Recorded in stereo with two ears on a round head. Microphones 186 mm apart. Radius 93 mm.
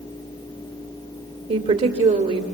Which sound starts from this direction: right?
A woman speaking, at 1.5 s.